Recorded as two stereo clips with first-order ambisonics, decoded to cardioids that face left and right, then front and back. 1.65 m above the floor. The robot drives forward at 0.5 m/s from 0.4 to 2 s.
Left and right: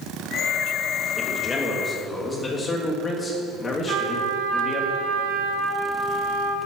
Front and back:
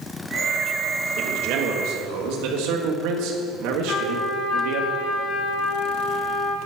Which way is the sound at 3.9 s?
55° right.